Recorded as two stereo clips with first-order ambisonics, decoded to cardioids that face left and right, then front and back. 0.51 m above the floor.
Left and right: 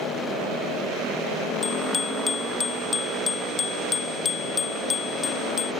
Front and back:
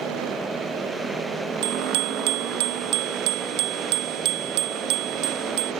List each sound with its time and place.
1.6 s a bicycle bell: 165° left; by 5.7 s 155° left